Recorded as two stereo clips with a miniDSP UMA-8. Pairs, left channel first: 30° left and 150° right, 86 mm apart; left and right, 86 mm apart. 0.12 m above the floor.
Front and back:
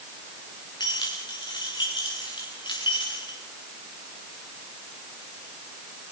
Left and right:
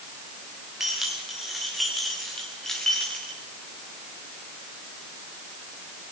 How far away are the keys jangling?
About 8 m.